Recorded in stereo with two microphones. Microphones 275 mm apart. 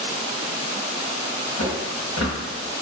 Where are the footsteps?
60° left (ahead or behind), 1.1 m.